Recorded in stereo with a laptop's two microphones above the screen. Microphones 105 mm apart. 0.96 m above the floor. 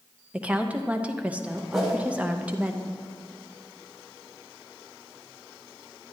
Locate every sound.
0.3 s a woman speaking: 15° right (ahead or behind), 0.7 m
1.7 s a whoosh: centre (ahead or behind), 3 m